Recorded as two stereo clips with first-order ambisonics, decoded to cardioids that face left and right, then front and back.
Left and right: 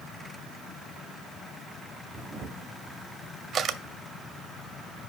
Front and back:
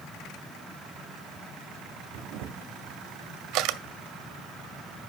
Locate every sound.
2.1 s a camera shutter: 150° right, 0.6 m